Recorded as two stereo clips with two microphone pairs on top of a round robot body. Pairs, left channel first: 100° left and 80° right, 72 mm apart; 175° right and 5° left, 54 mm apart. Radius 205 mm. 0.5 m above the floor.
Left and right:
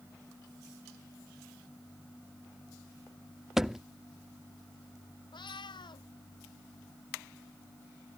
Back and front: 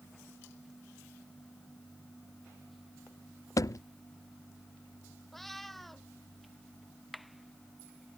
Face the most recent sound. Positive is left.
turn(degrees=100)